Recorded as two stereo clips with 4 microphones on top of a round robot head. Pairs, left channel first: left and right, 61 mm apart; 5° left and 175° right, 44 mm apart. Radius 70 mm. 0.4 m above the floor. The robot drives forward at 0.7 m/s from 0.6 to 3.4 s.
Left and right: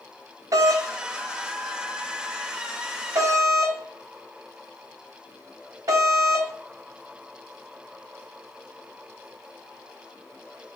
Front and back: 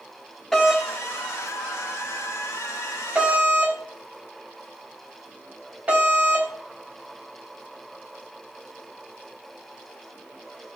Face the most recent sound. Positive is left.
turn(degrees=-115)